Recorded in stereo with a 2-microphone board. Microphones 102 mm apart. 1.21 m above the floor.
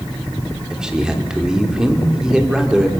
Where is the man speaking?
5° right (ahead or behind), 3 m.